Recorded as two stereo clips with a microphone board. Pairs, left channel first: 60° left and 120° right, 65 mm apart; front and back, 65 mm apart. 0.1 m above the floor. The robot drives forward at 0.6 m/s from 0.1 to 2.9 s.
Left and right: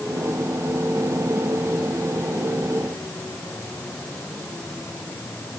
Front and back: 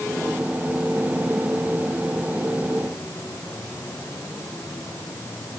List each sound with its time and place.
Only background noise.